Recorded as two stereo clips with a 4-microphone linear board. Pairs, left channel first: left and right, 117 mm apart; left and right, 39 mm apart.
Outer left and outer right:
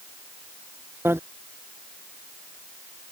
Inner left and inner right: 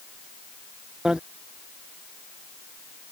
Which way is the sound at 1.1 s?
20° right (ahead or behind).